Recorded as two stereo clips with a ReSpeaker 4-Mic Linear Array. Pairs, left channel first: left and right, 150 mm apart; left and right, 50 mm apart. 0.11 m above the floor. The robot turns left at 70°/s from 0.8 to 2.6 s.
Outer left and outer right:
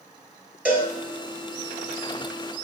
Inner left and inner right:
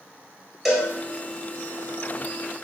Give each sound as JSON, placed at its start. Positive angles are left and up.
{"t": 0.7, "sound": "a cowbell", "side_deg": -10, "distance_m": 1.1}